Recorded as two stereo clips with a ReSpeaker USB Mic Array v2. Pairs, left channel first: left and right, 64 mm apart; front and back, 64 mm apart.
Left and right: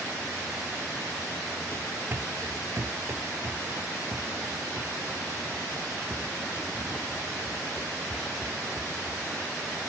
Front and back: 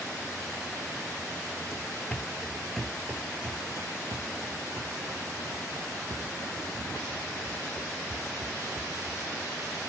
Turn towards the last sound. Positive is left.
turn(degrees=-170)